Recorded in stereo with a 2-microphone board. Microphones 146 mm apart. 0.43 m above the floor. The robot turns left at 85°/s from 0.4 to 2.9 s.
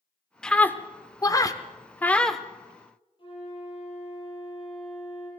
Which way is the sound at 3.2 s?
35° left (ahead or behind).